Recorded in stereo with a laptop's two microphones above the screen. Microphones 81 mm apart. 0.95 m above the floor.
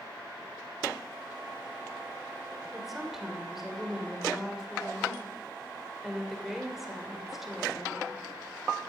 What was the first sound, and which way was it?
A woman speaking, 5° right (ahead or behind).